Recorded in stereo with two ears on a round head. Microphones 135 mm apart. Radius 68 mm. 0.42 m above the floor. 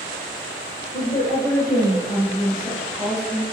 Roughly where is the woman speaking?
Left.